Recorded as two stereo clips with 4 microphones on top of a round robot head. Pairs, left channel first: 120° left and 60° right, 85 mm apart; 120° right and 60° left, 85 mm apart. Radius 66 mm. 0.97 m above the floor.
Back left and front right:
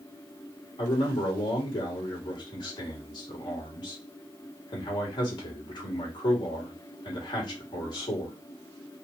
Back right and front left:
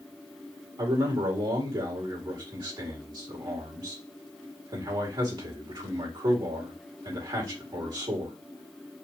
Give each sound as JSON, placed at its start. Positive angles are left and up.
{"t": 0.8, "sound": "a man speaking", "azimuth_deg": 90, "distance_m": 2.5}